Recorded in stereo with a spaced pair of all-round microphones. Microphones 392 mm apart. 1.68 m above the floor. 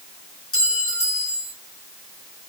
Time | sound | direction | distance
0.5 | a clink | 35° left (ahead or behind) | 3 m